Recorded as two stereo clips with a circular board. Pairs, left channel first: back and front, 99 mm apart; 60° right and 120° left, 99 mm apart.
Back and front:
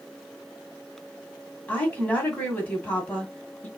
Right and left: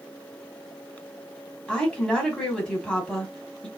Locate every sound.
1.7 s a woman speaking: 125° right, 1.5 m